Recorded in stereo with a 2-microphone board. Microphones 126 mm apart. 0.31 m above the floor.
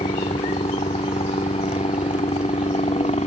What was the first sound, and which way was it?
A helicopter, 60° left (ahead or behind).